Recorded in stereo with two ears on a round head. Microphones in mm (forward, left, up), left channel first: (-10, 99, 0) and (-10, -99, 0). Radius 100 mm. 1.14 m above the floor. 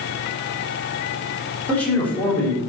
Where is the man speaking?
5° left (ahead or behind), 3 m.